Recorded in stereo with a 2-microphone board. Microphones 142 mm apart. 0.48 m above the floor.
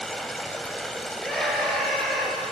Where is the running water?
Centre (ahead or behind), 1.3 m.